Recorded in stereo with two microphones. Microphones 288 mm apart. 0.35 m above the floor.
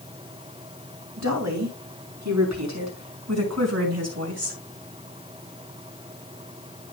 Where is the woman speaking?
75° right (ahead or behind), 5.5 m; by 4.6 s 55° right (ahead or behind), 4.5 m.